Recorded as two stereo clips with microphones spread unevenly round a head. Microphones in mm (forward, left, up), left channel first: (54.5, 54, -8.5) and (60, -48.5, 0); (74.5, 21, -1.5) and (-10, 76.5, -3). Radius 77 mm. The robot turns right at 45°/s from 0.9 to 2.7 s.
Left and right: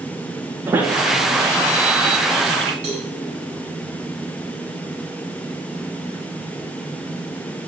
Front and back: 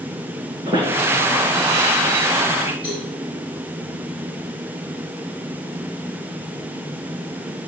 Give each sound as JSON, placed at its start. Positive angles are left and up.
{"t": 0.7, "sound": "a squeak", "azimuth_deg": -155, "distance_m": 1.7}
{"t": 2.8, "sound": "a cowbell", "azimuth_deg": -95, "distance_m": 4.5}